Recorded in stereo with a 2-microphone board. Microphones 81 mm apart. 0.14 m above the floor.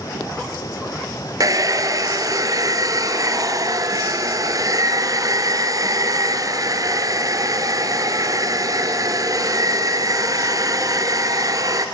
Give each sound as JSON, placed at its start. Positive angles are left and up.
{"t": 1.4, "sound": "a hair dryer", "side_deg": -45, "distance_m": 1.4}